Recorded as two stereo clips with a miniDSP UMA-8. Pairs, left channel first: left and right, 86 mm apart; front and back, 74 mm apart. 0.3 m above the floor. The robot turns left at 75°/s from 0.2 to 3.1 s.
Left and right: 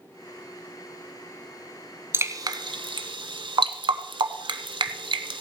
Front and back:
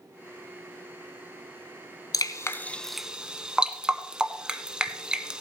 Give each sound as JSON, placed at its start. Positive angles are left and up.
{"t": 2.1, "sound": "dripping", "azimuth_deg": -30, "distance_m": 0.8}